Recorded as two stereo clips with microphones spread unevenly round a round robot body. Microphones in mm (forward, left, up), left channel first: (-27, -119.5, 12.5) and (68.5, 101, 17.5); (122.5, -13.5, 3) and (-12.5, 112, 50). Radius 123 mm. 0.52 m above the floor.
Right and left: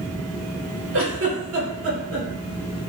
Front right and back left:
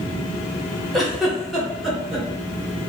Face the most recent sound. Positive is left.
turn(degrees=40)